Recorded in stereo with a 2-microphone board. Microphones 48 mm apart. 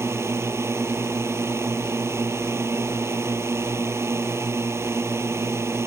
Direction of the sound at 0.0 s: 70° right (ahead or behind).